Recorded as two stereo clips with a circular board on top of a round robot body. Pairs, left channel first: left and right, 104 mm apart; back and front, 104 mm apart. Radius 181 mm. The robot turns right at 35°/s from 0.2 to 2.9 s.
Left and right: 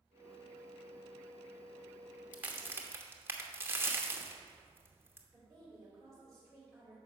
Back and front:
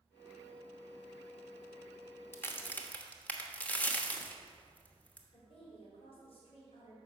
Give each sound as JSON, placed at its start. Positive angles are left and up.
{"t": 2.3, "sound": "a crack", "azimuth_deg": -145, "distance_m": 1.2}
{"t": 5.3, "sound": "a woman speaking", "azimuth_deg": 175, "distance_m": 2.5}